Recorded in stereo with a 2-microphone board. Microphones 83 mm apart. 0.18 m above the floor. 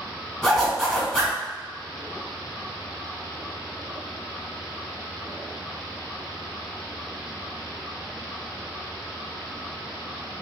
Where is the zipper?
10° left (ahead or behind), 1.6 m.